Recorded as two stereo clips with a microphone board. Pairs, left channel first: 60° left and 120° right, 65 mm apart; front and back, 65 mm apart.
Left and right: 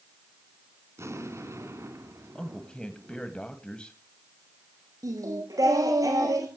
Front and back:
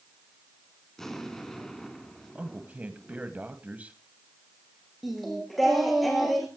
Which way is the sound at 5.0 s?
90° right.